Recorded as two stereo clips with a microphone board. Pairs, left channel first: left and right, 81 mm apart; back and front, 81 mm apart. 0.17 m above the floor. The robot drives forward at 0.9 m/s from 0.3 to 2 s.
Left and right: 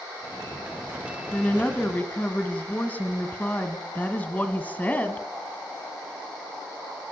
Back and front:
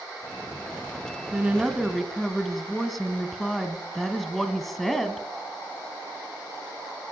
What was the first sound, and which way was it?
A woman speaking, 45° left.